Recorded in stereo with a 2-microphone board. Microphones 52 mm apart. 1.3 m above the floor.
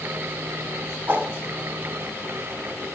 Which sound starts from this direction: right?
A whoosh, at 1.1 s.